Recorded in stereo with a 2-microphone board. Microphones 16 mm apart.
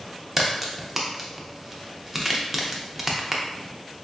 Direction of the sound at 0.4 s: 15° right (ahead or behind).